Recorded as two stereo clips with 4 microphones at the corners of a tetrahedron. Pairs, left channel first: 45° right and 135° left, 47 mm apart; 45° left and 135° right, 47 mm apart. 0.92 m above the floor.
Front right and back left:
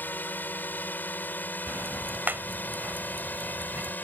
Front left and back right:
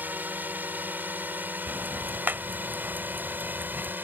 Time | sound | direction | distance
0.0 | a drone | 90° right | ?
1.7 | ticking | straight behind | ?